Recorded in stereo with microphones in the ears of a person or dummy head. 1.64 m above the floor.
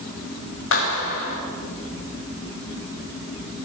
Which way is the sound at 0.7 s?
85° left.